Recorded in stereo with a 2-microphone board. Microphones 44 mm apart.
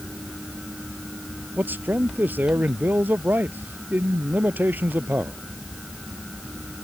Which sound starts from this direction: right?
A man speaking, at 1.6 s.